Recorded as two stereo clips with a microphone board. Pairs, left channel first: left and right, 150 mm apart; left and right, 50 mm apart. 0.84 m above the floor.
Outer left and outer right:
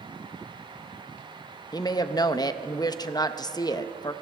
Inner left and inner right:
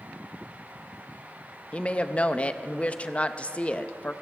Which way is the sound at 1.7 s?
25° left (ahead or behind).